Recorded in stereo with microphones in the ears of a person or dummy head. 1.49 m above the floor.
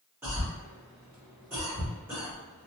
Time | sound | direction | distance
0.2 | a cough | 10° right (ahead or behind) | 1.3 m